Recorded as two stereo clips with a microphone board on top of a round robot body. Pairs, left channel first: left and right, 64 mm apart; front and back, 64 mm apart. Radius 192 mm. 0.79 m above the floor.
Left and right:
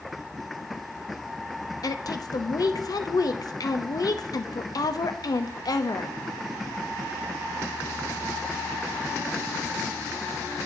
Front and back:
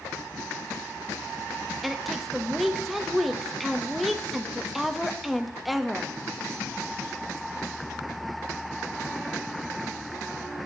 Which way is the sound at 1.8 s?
90° left.